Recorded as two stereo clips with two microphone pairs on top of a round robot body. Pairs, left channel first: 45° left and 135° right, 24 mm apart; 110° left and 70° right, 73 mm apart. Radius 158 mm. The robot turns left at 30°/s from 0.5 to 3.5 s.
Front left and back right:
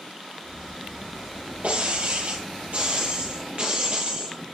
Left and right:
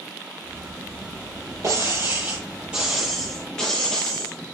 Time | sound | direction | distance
1.6 | breaking glass | 120° right | 6.5 m